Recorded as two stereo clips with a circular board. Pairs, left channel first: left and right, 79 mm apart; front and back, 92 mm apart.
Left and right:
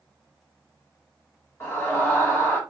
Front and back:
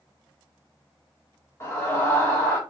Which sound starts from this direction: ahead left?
A scream, at 1.6 s.